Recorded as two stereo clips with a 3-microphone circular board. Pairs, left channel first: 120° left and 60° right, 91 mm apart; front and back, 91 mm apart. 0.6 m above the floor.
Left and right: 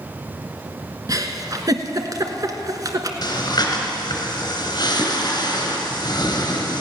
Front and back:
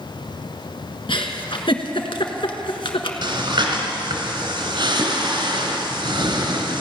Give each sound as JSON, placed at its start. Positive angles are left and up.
{"t": 1.1, "sound": "a giggle", "azimuth_deg": -15, "distance_m": 1.4}
{"t": 3.2, "sound": "breathing", "azimuth_deg": 160, "distance_m": 2.5}